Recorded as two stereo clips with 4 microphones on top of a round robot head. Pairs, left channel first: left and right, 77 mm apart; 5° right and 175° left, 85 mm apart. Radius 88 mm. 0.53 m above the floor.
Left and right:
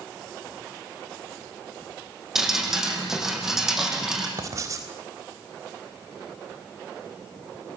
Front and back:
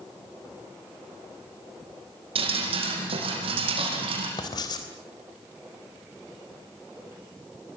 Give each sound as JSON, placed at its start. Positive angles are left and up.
{"t": 2.4, "sound": "dripping", "azimuth_deg": -175, "distance_m": 7.5}
{"t": 4.4, "sound": "writing", "azimuth_deg": -40, "distance_m": 4.0}